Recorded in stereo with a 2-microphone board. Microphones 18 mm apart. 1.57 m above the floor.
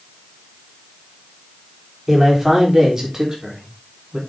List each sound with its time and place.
2.1 s a man speaking: 25° right (ahead or behind), 4 m; by 4.2 s 40° right (ahead or behind), 4 m